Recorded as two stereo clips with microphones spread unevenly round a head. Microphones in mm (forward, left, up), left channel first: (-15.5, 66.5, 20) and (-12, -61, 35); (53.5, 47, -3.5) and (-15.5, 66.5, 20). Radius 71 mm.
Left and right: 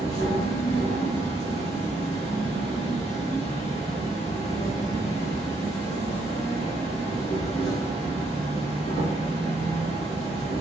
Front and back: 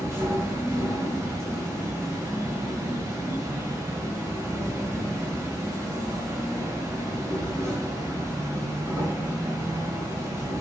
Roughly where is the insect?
Left.